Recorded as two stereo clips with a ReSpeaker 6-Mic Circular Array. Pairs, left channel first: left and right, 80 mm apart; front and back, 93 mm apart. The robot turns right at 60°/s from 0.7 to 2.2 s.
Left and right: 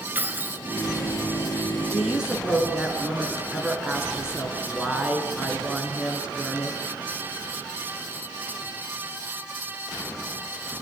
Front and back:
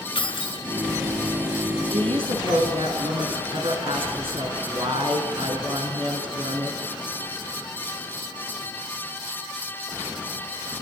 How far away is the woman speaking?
About 5 m.